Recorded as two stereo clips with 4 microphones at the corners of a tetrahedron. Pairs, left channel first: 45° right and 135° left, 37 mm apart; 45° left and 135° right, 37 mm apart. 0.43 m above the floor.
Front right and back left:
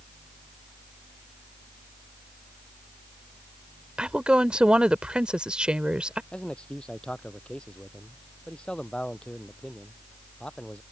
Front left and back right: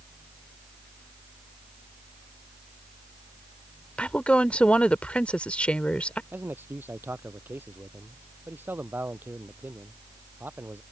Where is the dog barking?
No dog barking in this recording.